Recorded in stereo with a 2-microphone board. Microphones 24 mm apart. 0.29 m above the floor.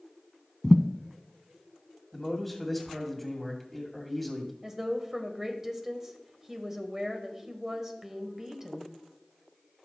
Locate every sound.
0.6 s a thud: 15° left (ahead or behind), 0.7 m
2.1 s a man speaking: 5° left (ahead or behind), 2 m
4.6 s a woman speaking: 15° right (ahead or behind), 1.3 m